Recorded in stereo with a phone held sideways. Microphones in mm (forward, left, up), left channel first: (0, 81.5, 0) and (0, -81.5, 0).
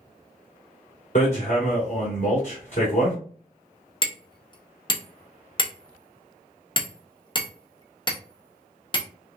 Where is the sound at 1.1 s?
50° left (ahead or behind), 2.5 m.